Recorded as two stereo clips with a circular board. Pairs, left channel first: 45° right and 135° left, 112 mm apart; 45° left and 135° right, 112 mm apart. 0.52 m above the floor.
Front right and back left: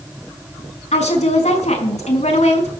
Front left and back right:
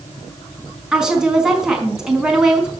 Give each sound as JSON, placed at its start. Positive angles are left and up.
{"t": 0.9, "sound": "a woman speaking", "azimuth_deg": -50, "distance_m": 4.5}